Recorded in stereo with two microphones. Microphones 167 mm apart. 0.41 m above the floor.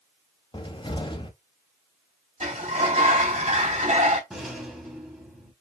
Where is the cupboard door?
30° left (ahead or behind), 0.6 m.